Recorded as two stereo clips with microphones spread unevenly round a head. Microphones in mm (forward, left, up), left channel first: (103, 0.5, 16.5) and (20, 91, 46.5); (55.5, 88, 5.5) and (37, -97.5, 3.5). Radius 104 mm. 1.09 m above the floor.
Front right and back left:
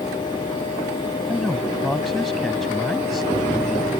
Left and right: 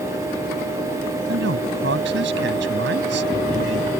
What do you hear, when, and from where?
1.3 s a man speaking: 140° right